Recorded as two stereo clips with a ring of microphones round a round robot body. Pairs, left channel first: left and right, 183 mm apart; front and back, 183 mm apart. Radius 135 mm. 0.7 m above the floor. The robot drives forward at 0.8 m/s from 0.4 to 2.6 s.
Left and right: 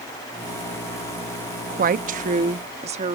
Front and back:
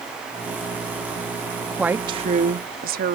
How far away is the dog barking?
I don't hear a dog barking.